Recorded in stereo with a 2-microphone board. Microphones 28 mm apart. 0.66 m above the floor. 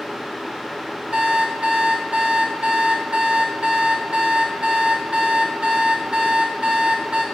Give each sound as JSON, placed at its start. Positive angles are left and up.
{"t": 1.1, "sound": "an alarm clock", "side_deg": -40, "distance_m": 1.2}